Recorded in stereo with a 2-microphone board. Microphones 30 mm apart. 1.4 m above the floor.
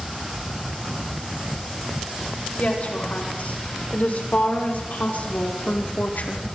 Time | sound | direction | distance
2.6 | a woman speaking | 60° left (ahead or behind) | 7 m